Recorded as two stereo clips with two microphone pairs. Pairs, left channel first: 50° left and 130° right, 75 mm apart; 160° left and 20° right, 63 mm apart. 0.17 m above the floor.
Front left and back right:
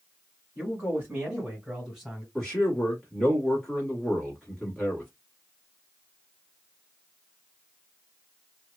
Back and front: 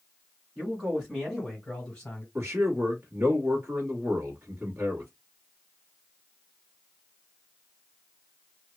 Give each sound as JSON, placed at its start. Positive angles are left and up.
{"t": 0.6, "sound": "a man speaking", "azimuth_deg": -80, "distance_m": 1.8}
{"t": 2.4, "sound": "a man speaking", "azimuth_deg": -30, "distance_m": 1.2}